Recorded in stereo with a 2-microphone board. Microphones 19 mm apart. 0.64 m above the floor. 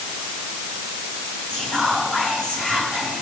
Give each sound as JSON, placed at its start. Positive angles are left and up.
{"t": 1.5, "sound": "whispering", "side_deg": 65, "distance_m": 5.0}